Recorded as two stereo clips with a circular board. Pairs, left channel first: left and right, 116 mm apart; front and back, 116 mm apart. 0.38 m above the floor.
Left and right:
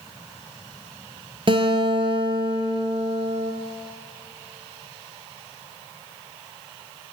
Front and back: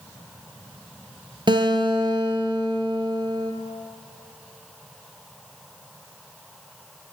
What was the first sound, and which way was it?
A guitar, 135° right.